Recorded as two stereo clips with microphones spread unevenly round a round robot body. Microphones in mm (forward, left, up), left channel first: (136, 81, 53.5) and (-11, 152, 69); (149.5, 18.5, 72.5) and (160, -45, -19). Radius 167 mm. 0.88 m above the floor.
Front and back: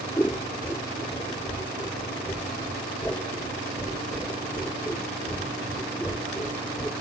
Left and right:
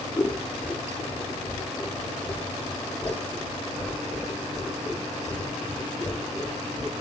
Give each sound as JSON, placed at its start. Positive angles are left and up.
{"t": 0.2, "sound": "scissors", "azimuth_deg": 55, "distance_m": 6.5}